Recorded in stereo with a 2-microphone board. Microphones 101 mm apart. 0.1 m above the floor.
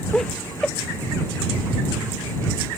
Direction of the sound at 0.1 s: 5° left (ahead or behind).